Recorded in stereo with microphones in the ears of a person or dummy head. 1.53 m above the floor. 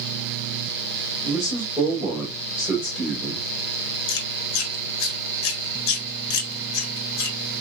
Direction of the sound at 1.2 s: 10° right (ahead or behind).